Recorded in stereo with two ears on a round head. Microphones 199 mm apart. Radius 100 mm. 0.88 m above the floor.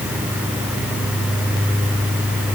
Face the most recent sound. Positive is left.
No sound to turn to.